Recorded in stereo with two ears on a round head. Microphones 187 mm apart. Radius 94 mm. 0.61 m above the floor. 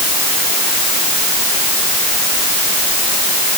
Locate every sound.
Only background noise.